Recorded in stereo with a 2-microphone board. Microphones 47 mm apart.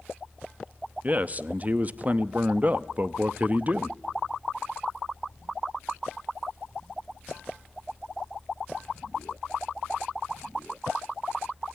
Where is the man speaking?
35° right (ahead or behind), 0.8 m.